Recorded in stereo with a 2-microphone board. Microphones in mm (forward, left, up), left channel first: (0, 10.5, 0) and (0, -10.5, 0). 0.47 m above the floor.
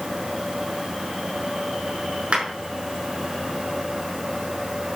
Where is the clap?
60° right (ahead or behind), 5.5 m.